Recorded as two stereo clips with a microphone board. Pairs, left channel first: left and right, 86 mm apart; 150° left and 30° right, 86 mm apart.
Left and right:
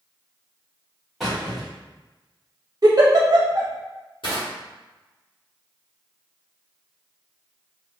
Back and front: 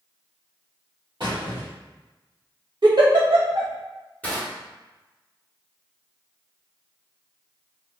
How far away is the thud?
No thud in this recording.